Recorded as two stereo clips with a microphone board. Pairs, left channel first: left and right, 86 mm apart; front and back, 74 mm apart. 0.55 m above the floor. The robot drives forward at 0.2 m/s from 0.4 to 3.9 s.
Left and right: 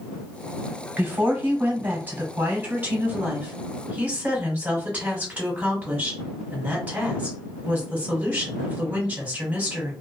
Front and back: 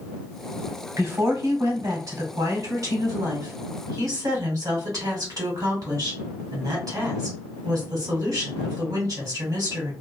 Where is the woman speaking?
150° right, 1.2 m; by 9.9 s 160° right, 1.6 m.